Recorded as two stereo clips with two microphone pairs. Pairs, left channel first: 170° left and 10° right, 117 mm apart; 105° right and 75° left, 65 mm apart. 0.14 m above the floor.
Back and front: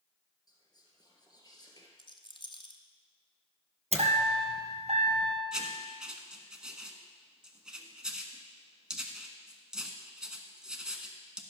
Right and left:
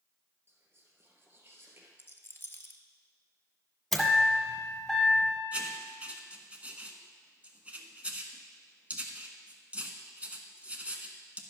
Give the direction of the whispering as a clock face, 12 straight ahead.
8 o'clock.